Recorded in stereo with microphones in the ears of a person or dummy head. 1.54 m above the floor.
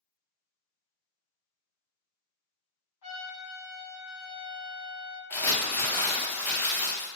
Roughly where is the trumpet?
Left.